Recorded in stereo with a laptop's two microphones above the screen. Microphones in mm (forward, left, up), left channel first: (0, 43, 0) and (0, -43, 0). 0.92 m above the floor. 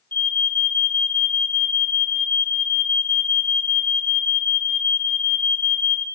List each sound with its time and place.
0.1 s an alarm: 25° left (ahead or behind), 0.8 m